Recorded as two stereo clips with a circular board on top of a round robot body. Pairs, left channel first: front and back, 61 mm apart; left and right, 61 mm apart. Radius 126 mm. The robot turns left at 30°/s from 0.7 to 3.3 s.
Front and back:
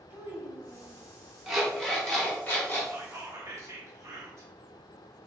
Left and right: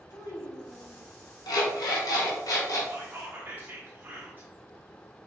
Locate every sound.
0.1 s a child speaking: 125° left, 1.5 m; by 1.0 s 115° left, 1.5 m
1.5 s an alarm clock: 100° left, 1.2 m; by 2.8 s 60° left, 1.2 m
2.9 s whispering: 135° right, 1.0 m; by 4.5 s 150° right, 1.0 m